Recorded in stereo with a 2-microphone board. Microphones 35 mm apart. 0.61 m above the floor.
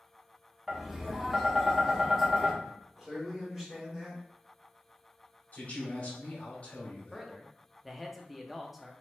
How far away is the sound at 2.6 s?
About 2.0 m.